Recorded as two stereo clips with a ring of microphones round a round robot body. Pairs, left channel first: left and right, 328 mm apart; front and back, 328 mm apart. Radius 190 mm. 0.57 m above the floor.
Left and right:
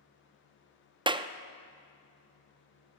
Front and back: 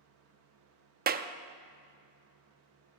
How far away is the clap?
About 0.6 m.